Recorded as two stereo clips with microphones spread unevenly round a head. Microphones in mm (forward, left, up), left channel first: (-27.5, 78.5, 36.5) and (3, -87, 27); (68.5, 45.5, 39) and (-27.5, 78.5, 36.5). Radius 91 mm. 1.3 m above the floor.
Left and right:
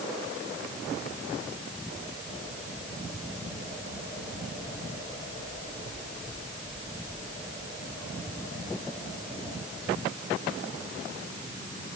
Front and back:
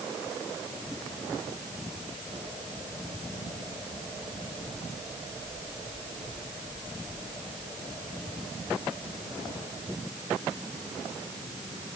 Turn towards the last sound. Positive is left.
No sound to turn to.